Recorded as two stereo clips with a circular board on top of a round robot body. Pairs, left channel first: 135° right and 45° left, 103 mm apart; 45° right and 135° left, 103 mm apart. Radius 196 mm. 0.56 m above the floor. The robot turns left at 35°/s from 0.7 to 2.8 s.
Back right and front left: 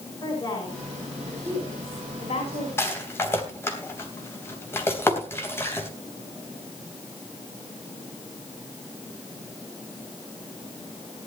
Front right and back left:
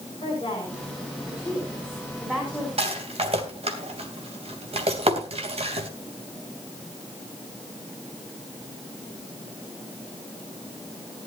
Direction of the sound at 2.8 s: 160° left.